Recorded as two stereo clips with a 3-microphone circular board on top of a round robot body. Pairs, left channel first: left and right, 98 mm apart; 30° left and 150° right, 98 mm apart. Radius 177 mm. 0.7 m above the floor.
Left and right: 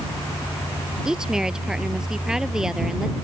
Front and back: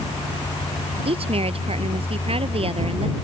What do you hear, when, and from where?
1.1 s a woman speaking: 175° right